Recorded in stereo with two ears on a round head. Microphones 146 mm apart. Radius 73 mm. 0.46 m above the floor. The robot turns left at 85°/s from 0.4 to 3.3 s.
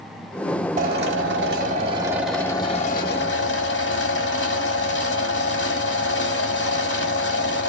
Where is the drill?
50° right, 1.3 m; by 7.7 s 95° left, 1.3 m.